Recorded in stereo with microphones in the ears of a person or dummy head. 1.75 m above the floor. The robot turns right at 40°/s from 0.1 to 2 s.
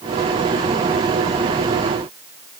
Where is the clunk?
No clunk in this recording.